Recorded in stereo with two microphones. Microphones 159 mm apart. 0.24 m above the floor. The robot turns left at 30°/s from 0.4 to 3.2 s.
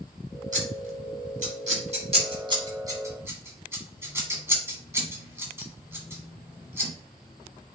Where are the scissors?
55° right (ahead or behind), 1.4 m; by 6.9 s 15° right (ahead or behind), 1.4 m.